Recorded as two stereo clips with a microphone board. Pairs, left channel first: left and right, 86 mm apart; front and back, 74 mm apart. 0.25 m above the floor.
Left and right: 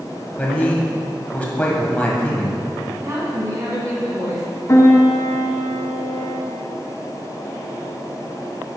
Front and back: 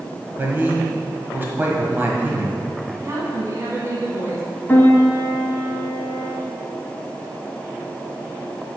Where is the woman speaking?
135° right, 1.9 m.